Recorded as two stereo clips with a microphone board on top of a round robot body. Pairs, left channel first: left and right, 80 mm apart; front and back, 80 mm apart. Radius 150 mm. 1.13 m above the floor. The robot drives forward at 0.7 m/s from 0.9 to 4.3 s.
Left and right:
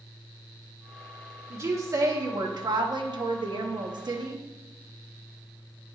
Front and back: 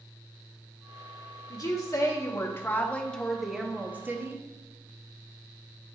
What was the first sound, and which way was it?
A woman speaking, 35° right.